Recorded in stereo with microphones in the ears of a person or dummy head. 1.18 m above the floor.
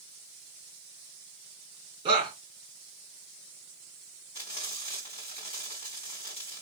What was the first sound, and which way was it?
A shout, 20° right (ahead or behind).